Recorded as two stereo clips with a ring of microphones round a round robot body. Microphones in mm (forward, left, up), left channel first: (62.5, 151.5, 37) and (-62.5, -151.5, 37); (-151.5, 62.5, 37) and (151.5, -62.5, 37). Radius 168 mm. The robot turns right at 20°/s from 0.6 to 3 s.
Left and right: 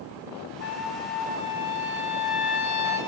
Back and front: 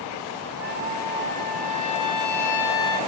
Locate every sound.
0.6 s a trumpet: 25° left, 2 m; by 3.0 s 70° left, 2 m